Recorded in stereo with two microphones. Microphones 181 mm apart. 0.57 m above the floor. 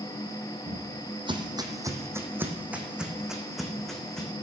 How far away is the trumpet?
I don't hear a trumpet.